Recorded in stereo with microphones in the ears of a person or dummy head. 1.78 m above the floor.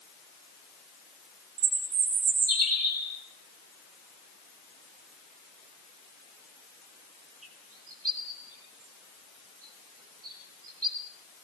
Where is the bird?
40° right (ahead or behind), 3.5 m.